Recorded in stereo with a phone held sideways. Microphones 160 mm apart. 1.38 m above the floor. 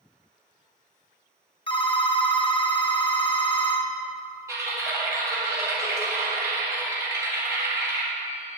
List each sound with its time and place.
1.7 s a phone ringing: 35° left (ahead or behind), 1.1 m
4.5 s typing on a keyboard: 20° right (ahead or behind), 3.5 m